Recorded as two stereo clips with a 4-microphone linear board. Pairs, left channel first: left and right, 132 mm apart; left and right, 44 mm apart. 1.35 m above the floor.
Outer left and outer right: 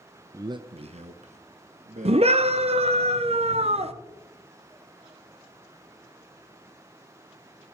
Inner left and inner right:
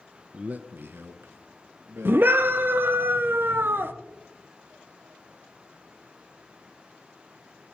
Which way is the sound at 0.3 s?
20° right (ahead or behind).